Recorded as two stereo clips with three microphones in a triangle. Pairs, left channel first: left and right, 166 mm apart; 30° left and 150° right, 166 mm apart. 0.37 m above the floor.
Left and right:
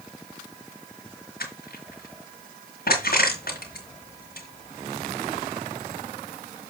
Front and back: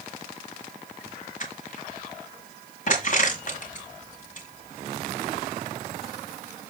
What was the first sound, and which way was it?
Crushing, 70° left.